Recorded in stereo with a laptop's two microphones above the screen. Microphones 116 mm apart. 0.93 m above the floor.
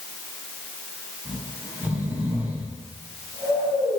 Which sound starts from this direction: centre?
Snoring, at 1.2 s.